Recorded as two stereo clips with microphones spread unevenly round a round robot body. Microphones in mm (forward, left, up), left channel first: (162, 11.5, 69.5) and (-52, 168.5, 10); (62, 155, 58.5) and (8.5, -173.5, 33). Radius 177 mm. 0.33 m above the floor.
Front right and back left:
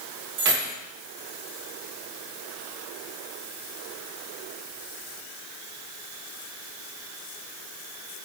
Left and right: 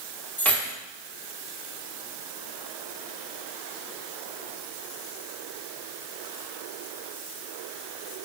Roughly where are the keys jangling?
Behind.